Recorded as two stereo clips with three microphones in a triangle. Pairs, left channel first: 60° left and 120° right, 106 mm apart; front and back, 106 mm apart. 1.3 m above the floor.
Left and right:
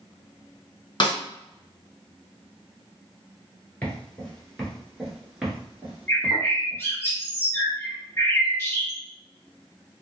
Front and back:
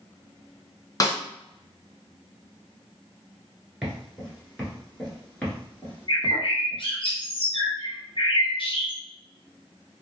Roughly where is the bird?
Ahead.